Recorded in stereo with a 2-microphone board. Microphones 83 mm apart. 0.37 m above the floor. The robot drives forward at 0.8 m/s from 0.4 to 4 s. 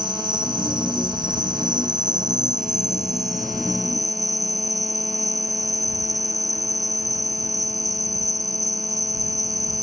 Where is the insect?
65° right (ahead or behind); by 9.8 s 45° right (ahead or behind).